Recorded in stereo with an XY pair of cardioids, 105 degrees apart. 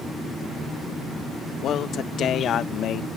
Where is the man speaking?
65° left; by 3.1 s 75° left.